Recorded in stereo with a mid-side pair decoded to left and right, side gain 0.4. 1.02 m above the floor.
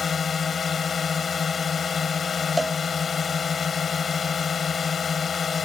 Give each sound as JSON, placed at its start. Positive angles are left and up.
{"t": 0.0, "sound": "a drone", "azimuth_deg": 50}
{"t": 2.6, "sound": "a cowbell", "azimuth_deg": -10}